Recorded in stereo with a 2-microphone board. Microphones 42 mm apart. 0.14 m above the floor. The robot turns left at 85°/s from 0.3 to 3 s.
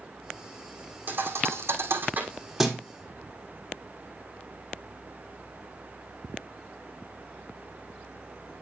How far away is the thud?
About 1.8 m.